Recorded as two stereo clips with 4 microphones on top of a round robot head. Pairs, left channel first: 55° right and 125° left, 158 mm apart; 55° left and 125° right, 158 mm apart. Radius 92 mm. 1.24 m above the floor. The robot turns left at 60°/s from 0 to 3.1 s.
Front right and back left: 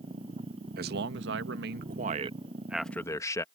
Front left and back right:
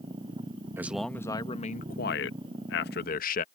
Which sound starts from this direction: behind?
A man speaking, at 0.8 s.